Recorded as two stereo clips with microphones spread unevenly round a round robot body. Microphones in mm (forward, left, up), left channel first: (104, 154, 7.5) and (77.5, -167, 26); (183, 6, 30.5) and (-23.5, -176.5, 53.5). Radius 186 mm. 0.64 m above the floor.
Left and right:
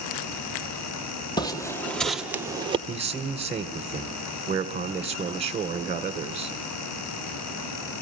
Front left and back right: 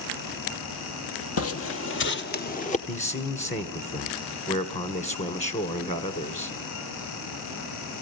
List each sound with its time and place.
1.4 s footsteps: 5° left, 1.5 m; by 2.8 s 25° right, 1.1 m
2.9 s a man speaking: 20° right, 2.5 m